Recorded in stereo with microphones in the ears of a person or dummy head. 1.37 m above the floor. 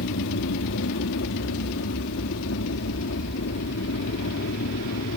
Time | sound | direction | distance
0.0 | an aircraft | 70° left (ahead or behind) | ?